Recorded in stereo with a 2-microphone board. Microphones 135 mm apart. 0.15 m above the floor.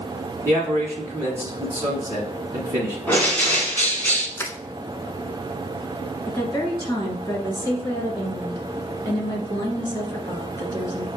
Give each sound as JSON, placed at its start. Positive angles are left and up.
{"t": 0.5, "sound": "a man speaking", "side_deg": -25, "distance_m": 1.2}
{"t": 3.1, "sound": "a bird", "side_deg": 15, "distance_m": 1.4}
{"t": 4.4, "sound": "crushing", "side_deg": 20, "distance_m": 0.5}
{"t": 6.3, "sound": "a woman speaking", "side_deg": 20, "distance_m": 1.6}